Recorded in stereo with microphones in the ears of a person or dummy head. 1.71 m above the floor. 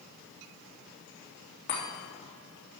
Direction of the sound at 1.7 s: 50° left (ahead or behind).